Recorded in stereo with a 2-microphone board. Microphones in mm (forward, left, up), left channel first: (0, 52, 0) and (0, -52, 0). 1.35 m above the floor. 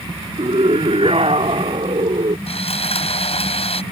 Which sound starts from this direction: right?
A scream, at 0.4 s.